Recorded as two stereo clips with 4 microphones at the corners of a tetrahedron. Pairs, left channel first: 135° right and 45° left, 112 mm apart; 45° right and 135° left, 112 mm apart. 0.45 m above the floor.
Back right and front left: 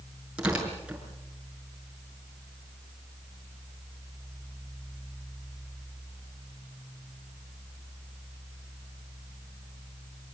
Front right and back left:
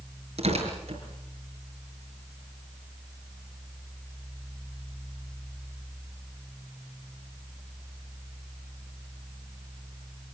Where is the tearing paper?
125° left, 5.5 m.